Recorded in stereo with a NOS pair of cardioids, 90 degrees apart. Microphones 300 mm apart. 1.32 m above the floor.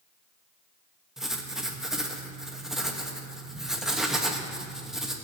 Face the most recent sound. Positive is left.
turn(degrees=0)